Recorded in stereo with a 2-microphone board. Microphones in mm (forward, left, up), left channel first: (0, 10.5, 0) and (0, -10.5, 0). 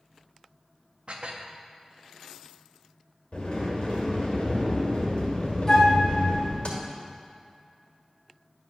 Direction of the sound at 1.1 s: 60° right (ahead or behind).